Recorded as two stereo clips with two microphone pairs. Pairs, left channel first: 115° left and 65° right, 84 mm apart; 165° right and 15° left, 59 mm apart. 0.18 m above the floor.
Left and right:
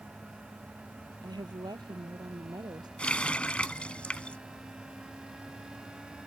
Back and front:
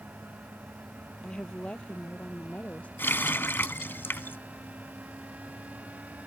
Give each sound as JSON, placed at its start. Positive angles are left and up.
{"t": 1.2, "sound": "a woman speaking", "azimuth_deg": -90}
{"t": 3.0, "sound": "a running tap", "azimuth_deg": 180}